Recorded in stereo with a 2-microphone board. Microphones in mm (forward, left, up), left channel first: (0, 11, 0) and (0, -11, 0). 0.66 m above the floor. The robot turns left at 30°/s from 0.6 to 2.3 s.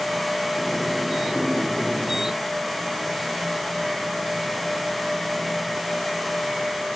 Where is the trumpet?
I don't hear a trumpet.